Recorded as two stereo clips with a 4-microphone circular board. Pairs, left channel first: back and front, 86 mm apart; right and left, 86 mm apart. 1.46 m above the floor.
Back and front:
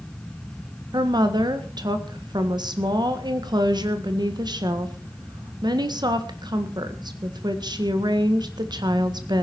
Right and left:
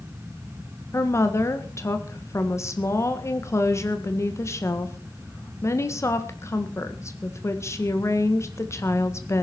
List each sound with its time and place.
0.9 s a woman speaking: 35° right, 1.7 m